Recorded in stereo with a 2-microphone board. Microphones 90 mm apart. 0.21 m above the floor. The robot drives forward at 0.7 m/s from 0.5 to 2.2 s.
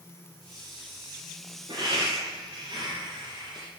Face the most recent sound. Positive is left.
turn(degrees=-65)  # may be behind; listen again after turning